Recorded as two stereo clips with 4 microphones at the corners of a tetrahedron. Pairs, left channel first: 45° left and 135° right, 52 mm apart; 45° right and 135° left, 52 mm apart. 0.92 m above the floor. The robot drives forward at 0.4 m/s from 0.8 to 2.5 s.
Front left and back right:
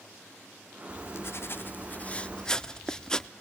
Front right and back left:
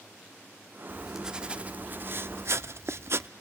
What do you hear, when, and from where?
0.9 s writing: 50° left, 0.7 m; by 3.3 s 120° left, 0.6 m